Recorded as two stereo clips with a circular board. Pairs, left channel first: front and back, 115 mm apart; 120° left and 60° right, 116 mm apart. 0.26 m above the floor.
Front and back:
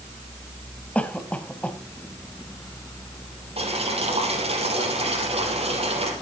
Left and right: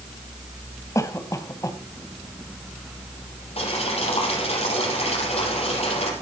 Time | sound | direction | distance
0.9 | a cough | 75° left | 1.7 m
3.6 | boiling | 150° left | 4.5 m